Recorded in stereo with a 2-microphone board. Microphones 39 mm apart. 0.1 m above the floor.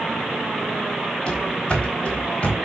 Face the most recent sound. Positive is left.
turn(degrees=35)  # may be behind; listen again after turning